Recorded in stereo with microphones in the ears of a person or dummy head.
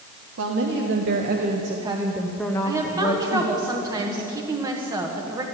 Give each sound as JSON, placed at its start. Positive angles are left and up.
{"t": 0.4, "sound": "a woman speaking", "side_deg": -70, "distance_m": 1.7}
{"t": 2.6, "sound": "a woman speaking", "side_deg": -20, "distance_m": 1.4}